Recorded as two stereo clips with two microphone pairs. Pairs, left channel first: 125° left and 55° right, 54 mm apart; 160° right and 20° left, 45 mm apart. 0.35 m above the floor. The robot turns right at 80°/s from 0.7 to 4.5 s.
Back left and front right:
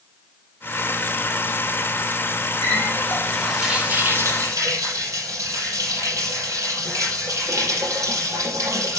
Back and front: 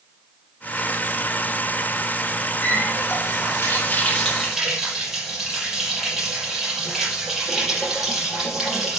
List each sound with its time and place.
2.6 s a running tap: 140° left, 5.5 m; by 9.0 s 65° right, 5.5 m